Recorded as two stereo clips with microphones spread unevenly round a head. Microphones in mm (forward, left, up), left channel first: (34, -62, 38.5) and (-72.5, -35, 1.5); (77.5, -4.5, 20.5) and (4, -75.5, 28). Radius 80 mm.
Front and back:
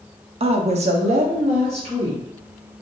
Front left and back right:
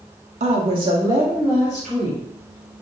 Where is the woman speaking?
170° right, 0.6 m; by 2.2 s 130° left, 1.4 m.